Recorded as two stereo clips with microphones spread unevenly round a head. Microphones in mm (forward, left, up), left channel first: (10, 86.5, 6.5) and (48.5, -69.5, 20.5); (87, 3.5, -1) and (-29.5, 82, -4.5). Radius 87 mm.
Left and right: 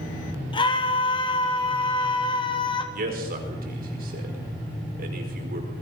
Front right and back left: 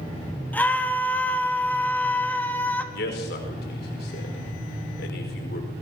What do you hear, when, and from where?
0.5 s a scream: 45° left, 3.5 m
2.9 s a man speaking: 45° right, 5 m